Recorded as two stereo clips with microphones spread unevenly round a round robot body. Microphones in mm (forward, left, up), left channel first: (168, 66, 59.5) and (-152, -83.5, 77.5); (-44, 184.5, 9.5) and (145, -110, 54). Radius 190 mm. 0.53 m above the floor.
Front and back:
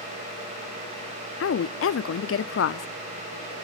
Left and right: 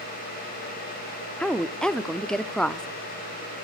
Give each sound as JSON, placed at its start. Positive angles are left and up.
{"t": 1.4, "sound": "a woman speaking", "azimuth_deg": 45, "distance_m": 0.8}